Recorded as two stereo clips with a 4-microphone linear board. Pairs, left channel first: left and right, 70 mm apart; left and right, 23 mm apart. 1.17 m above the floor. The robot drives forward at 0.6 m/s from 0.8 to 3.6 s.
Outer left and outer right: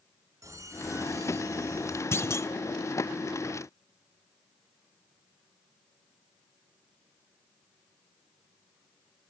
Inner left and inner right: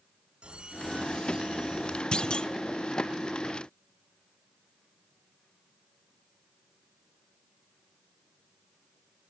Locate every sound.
0.4 s a squeak: 45° right (ahead or behind), 3 m; by 2.0 s 40° right (ahead or behind), 3.5 m
2.1 s a clunk: 40° left (ahead or behind), 1.3 m; by 2.5 s 45° left (ahead or behind), 1.2 m